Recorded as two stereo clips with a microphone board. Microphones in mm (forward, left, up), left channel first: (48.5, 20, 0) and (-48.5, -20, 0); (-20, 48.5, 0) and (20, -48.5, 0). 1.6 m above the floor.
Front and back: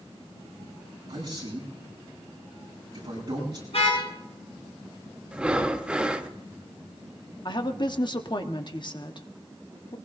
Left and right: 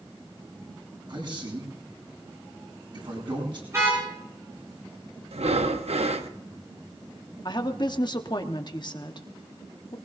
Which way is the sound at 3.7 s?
5° right.